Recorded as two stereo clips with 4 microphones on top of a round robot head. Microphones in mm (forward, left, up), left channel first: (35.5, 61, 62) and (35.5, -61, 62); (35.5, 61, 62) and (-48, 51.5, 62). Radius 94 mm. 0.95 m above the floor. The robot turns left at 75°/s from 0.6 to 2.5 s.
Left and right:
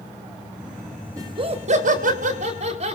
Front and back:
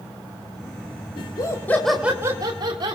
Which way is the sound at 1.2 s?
25° right.